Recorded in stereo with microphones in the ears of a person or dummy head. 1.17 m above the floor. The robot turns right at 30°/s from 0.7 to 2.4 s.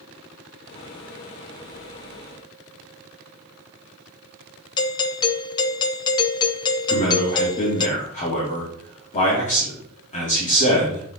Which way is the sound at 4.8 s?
20° left (ahead or behind).